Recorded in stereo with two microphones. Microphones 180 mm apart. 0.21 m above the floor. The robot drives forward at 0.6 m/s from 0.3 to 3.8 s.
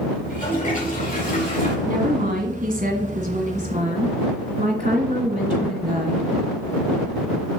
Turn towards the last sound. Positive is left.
turn(degrees=-40)  # may be behind; listen again after turning